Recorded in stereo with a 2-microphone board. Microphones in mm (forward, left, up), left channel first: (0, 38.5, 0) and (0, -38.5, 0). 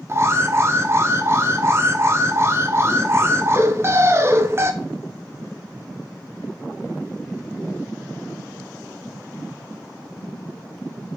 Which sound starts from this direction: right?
An alarm, at 0.1 s.